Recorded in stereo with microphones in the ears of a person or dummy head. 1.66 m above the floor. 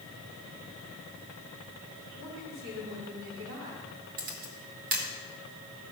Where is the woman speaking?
75° right (ahead or behind), 5 m.